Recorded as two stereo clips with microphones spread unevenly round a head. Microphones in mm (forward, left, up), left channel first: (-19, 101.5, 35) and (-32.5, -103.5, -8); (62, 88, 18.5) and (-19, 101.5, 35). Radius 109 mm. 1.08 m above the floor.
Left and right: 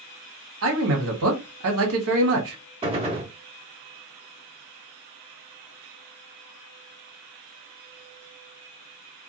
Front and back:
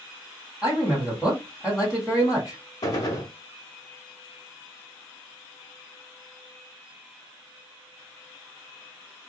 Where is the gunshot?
25° right, 0.7 m.